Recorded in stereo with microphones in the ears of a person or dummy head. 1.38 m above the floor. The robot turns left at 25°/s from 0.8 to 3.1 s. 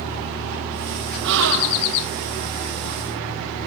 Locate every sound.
1.2 s a gasp: 60° right (ahead or behind), 1.7 m; by 1.9 s 75° right (ahead or behind), 1.7 m